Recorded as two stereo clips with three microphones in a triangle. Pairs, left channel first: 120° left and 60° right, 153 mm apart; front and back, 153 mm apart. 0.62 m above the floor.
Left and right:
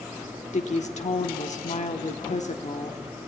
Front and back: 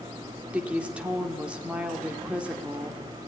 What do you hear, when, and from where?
0.5 s a woman speaking: 100° left, 1.8 m